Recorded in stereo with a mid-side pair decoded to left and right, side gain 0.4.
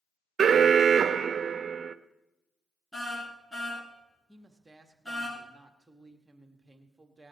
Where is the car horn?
10° left, 6.5 m.